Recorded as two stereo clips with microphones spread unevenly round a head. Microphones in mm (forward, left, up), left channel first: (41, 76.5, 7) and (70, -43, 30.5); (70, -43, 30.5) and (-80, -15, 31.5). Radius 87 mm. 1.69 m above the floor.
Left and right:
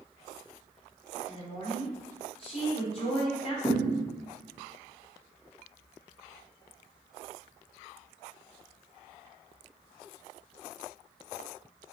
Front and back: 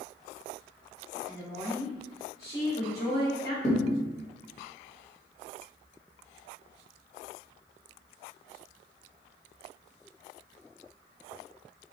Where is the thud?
25° left, 1.4 m.